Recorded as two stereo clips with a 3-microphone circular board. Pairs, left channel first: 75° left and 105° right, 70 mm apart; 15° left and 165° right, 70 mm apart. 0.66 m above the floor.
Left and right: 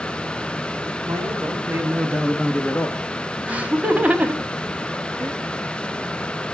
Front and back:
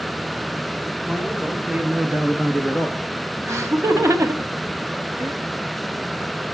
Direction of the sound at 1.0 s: 90° right.